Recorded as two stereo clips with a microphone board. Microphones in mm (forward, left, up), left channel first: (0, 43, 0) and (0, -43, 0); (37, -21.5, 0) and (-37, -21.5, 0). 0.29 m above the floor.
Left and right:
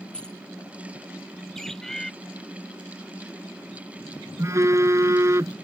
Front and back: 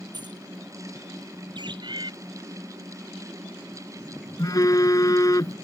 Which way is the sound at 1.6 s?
175° left.